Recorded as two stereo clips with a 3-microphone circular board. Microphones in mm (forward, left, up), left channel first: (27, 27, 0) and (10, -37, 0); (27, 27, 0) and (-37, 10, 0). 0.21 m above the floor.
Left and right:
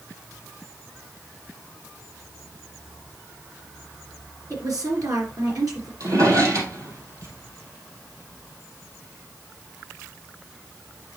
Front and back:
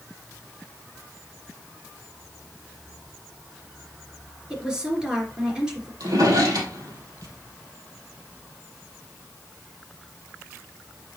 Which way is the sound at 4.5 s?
85° right.